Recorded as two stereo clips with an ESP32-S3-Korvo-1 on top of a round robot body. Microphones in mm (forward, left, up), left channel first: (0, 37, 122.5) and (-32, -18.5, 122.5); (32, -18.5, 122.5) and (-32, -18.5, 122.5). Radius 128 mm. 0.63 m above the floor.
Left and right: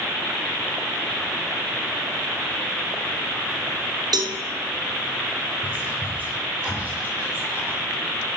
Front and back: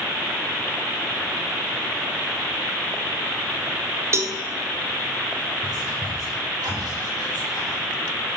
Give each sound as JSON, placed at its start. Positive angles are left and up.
{"t": 4.1, "sound": "a cowbell", "azimuth_deg": -130, "distance_m": 0.6}
{"t": 5.6, "sound": "whispering", "azimuth_deg": 175, "distance_m": 2.5}